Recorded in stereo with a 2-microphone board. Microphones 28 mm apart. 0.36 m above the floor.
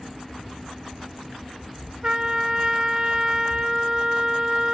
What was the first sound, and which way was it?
A trumpet, 30° right (ahead or behind).